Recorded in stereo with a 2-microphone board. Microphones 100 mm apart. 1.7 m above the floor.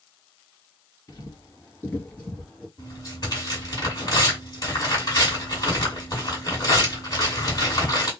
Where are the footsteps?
35° left (ahead or behind), 2.0 m; by 2.7 s 5° left (ahead or behind), 2.5 m.